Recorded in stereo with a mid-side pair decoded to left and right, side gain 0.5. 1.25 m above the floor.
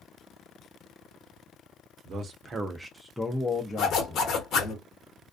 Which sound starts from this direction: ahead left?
A zipper, at 3.8 s.